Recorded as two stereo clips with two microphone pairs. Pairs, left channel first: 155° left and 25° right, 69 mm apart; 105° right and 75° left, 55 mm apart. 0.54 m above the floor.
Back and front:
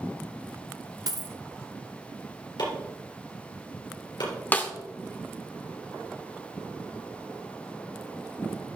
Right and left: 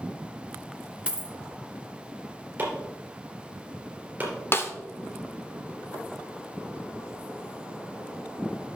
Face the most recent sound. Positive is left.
turn(degrees=-145)